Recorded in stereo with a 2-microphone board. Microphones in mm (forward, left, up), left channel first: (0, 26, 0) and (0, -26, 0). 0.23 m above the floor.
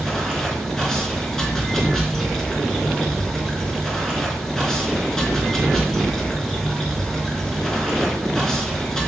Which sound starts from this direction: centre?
Running water, at 0.0 s.